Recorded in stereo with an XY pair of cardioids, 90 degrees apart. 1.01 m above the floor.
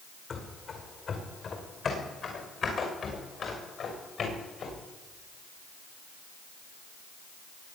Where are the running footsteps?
55° left, 4.5 m; by 4.8 s 60° left, 7 m.